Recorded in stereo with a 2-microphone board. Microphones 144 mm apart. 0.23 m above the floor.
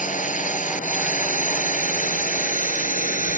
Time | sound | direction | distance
0.0 | a drone | 65° left (ahead or behind) | ?